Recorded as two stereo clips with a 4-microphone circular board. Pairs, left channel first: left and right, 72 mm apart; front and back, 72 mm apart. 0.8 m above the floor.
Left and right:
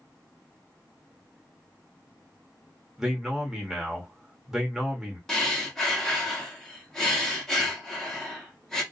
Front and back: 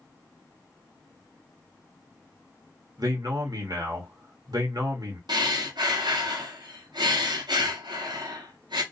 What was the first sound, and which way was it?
A man speaking, 175° right.